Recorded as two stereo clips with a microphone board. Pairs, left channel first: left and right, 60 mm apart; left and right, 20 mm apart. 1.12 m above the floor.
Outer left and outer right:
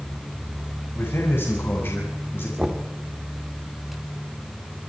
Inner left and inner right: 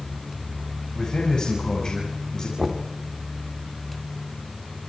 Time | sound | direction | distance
0.9 | a man speaking | 45° left (ahead or behind) | 5.5 m
2.6 | knocking | 10° right (ahead or behind) | 2 m